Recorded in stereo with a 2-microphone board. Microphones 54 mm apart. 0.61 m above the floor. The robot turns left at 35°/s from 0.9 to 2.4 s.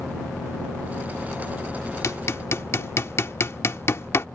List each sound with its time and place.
2.0 s hammering: 55° left (ahead or behind); by 4.3 s 50° left (ahead or behind)